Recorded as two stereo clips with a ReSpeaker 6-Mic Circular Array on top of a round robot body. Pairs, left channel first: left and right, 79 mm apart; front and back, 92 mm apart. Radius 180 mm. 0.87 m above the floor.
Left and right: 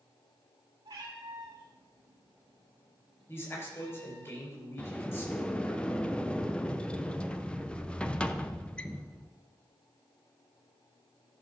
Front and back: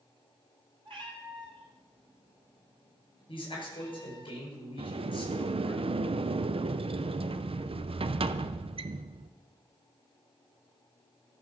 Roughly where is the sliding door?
Behind.